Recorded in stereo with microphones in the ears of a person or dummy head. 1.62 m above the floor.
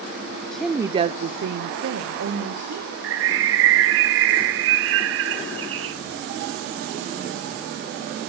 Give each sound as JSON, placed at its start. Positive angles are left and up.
{"t": 0.5, "sound": "a woman speaking", "side_deg": 5, "distance_m": 0.5}
{"t": 3.0, "sound": "a bird", "side_deg": -75, "distance_m": 0.8}